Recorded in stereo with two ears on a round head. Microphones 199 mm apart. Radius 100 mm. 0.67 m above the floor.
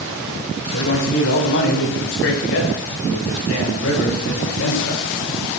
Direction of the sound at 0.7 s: 60° left (ahead or behind).